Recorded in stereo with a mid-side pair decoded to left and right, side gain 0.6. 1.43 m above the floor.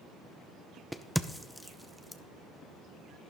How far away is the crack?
About 0.6 m.